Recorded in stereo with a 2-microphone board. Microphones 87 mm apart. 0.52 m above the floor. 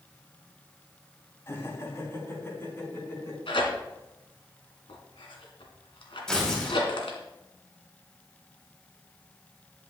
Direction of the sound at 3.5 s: 85° left.